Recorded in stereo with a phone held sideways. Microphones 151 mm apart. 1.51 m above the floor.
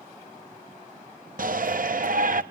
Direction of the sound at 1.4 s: 65° right (ahead or behind).